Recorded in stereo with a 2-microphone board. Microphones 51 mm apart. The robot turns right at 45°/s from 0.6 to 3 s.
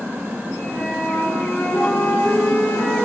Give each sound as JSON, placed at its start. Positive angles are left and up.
{"t": 0.7, "sound": "a flute", "azimuth_deg": 35, "distance_m": 4.0}